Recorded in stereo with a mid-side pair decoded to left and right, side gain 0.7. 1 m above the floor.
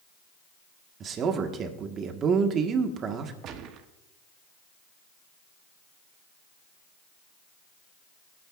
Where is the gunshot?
50° right, 1.2 m.